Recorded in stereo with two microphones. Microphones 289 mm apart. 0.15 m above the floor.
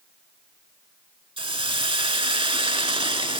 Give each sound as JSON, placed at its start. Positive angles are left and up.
{"t": 1.4, "sound": "a hiss", "side_deg": -20, "distance_m": 0.5}